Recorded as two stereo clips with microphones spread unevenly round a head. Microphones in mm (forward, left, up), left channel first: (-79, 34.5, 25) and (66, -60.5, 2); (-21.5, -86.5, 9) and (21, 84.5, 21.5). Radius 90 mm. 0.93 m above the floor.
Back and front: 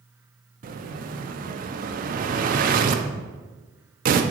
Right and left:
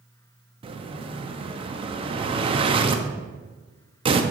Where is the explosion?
15° left, 0.7 m.